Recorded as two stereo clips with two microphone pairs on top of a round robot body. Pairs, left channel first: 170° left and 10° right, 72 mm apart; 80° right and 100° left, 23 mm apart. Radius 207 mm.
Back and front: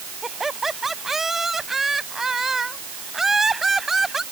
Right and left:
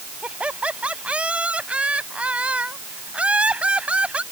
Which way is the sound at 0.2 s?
75° left.